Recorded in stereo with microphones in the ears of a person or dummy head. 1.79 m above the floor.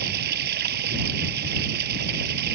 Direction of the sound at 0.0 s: 55° right (ahead or behind).